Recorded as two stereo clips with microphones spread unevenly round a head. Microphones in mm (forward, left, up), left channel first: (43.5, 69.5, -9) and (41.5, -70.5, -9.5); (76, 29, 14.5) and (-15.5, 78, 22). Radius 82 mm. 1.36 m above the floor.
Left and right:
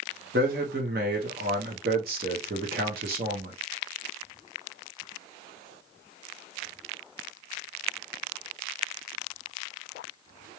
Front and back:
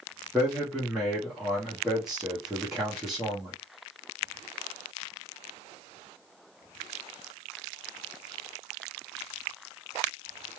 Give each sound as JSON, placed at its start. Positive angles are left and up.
{"t": 0.3, "sound": "a man speaking", "azimuth_deg": -120, "distance_m": 1.0}